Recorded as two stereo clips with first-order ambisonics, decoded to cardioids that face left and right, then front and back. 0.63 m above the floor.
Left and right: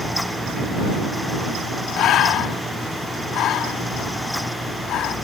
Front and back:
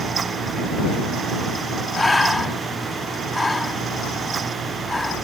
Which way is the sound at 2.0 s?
80° left.